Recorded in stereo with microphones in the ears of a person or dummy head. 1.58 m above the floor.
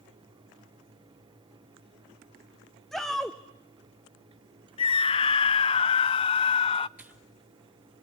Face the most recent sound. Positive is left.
turn(degrees=-5)  # may be behind; listen again after turning